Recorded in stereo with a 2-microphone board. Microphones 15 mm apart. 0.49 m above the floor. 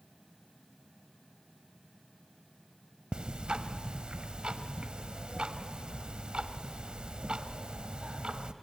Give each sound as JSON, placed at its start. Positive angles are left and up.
{"t": 3.1, "sound": "ticking", "side_deg": -85, "distance_m": 0.8}